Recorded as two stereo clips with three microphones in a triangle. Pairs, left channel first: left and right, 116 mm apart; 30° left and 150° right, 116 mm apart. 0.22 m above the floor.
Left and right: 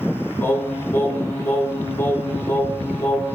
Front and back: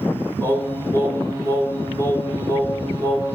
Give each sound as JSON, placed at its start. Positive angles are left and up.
{"t": 0.4, "sound": "singing", "azimuth_deg": 160, "distance_m": 0.6}